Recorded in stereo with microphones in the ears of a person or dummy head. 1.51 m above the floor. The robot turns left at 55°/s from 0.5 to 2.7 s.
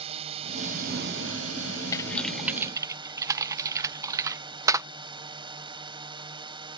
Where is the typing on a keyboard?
20° left (ahead or behind); by 4.9 s 20° right (ahead or behind).